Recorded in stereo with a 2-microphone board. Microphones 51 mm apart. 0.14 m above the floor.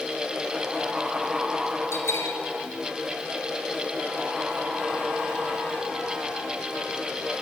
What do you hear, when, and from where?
1.9 s a bell: 60° left (ahead or behind), 2.5 m